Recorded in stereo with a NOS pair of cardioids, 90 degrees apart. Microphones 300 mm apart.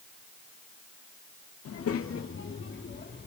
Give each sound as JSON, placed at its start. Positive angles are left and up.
{"t": 1.6, "sound": "a child speaking", "azimuth_deg": 55, "distance_m": 2.0}